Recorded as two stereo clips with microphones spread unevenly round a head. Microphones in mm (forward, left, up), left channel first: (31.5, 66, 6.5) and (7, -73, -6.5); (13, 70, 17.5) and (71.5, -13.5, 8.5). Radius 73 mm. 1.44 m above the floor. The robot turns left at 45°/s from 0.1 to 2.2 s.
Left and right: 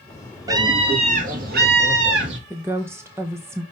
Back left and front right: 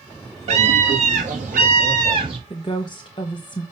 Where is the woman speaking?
175° right, 0.9 m.